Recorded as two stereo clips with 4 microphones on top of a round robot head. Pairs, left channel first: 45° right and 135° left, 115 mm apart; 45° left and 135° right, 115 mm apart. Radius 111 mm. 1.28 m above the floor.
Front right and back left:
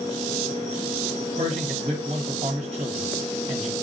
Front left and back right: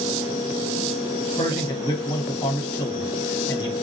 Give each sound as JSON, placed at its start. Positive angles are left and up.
{"t": 1.4, "sound": "a man speaking", "azimuth_deg": 100, "distance_m": 1.2}